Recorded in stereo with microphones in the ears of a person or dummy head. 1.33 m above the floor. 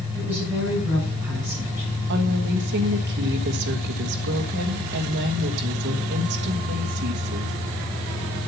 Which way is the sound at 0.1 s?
5° right (ahead or behind).